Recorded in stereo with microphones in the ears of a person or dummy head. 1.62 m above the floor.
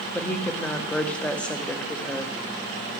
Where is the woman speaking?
Centre (ahead or behind), 0.8 m.